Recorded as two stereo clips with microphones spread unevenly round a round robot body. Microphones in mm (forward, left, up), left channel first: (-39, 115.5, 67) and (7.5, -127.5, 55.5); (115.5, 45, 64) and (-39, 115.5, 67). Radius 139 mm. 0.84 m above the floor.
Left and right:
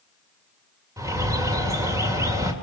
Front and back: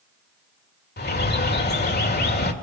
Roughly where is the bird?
Ahead.